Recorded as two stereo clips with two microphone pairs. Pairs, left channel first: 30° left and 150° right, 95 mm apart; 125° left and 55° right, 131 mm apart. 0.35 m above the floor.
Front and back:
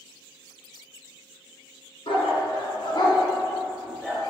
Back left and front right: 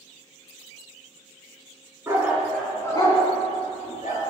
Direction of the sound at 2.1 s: 15° left.